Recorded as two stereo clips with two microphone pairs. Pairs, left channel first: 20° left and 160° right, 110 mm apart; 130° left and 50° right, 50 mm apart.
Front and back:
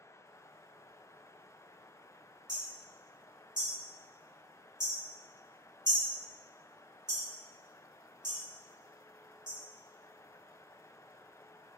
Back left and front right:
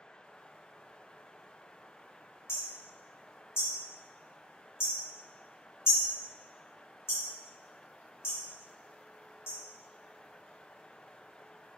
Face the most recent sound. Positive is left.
turn(degrees=150)